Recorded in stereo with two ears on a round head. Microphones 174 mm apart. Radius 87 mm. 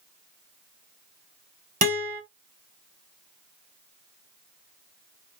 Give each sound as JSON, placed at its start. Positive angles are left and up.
{"t": 1.8, "sound": "a guitar", "side_deg": -45, "distance_m": 1.2}